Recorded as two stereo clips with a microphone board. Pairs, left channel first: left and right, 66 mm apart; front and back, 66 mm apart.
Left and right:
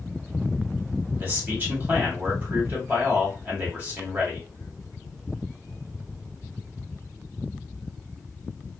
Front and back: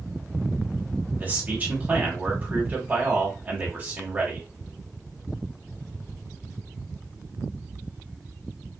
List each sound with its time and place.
1.2 s a man speaking: 130° right, 1.4 m